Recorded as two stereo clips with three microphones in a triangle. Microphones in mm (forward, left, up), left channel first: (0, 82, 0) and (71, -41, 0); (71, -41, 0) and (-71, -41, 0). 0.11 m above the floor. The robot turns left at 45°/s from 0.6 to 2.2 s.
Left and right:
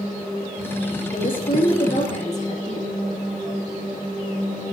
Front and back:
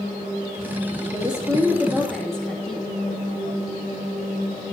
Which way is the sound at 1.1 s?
135° left.